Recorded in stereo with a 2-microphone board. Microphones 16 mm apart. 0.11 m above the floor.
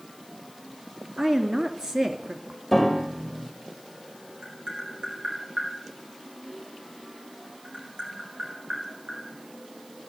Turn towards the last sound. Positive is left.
turn(degrees=-65)  # may be behind; listen again after turning